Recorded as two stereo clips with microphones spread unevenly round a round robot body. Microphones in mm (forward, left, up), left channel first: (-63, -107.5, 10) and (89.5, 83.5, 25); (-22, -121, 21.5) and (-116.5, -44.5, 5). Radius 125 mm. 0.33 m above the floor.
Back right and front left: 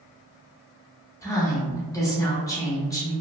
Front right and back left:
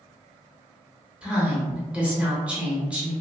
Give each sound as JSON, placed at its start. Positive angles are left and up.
{"t": 1.2, "sound": "a woman speaking", "azimuth_deg": -175, "distance_m": 0.9}